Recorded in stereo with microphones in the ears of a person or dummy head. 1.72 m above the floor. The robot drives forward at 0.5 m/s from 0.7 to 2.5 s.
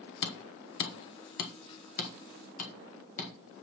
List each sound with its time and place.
0.2 s hammering: 65° left (ahead or behind), 1.1 m; by 3.3 s 40° left (ahead or behind), 1.6 m